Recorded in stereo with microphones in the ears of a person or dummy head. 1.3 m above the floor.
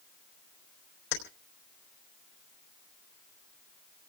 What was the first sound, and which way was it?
Keys jangling, 80° left.